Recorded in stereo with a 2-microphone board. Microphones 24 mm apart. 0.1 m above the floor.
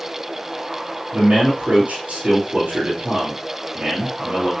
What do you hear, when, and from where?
1.1 s a man speaking: 60° right (ahead or behind), 3.5 m